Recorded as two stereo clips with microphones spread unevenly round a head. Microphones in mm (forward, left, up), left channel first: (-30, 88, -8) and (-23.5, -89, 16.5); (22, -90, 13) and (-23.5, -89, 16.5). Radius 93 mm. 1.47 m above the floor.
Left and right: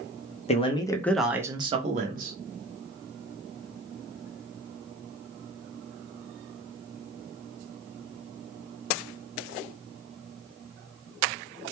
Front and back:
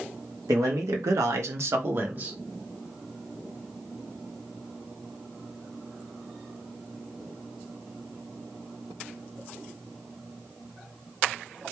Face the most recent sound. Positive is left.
turn(degrees=-125)